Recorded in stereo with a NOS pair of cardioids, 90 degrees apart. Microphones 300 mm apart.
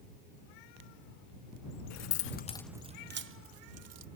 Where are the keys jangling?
65° left; by 4.1 s 60° right.